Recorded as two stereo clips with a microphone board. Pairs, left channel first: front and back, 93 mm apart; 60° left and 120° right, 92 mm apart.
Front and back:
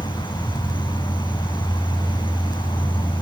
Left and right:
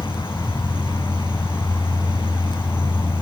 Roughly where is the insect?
Ahead.